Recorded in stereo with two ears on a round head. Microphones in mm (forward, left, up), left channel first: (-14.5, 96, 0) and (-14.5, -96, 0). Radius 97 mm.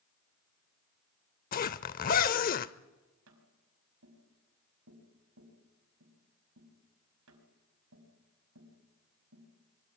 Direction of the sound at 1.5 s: 40° left (ahead or behind).